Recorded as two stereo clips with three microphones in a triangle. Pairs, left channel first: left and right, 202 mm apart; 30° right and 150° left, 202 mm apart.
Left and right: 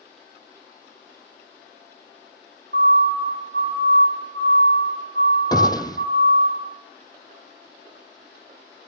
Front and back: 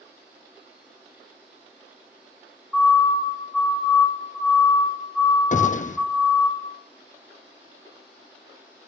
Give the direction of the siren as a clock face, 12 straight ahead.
4 o'clock.